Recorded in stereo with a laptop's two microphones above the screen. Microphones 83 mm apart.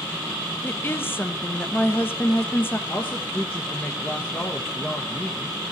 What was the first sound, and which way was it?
A woman speaking, 25° left (ahead or behind).